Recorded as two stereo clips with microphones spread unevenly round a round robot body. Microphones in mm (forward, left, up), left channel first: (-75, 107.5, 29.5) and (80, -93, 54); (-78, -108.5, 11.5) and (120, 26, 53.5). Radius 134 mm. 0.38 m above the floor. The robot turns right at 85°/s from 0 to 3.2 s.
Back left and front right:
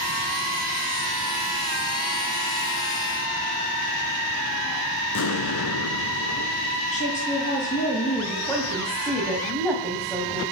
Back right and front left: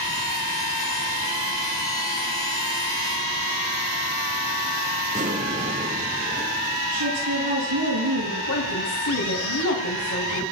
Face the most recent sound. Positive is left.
turn(degrees=-150)